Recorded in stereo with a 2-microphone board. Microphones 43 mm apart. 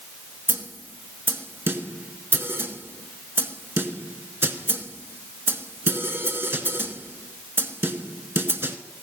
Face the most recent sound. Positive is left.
turn(degrees=-60)  # may be behind; listen again after turning